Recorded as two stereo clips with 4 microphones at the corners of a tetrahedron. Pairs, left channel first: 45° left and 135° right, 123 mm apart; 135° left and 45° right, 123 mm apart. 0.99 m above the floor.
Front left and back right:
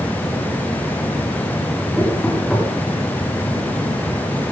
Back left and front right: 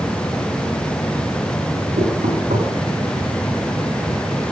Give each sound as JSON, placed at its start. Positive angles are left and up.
{"t": 2.0, "sound": "knocking", "azimuth_deg": -40, "distance_m": 8.0}